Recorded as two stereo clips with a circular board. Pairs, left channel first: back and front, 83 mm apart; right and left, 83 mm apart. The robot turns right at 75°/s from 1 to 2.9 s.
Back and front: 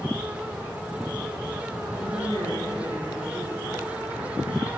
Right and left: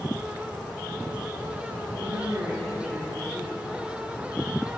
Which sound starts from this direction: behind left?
A woman speaking, at 2.0 s.